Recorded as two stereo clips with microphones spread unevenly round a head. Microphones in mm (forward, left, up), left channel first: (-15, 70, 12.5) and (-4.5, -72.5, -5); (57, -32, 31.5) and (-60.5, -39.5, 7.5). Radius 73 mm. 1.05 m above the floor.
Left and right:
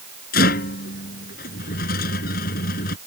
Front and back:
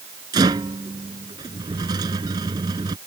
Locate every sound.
0.3 s a rattle: 120° left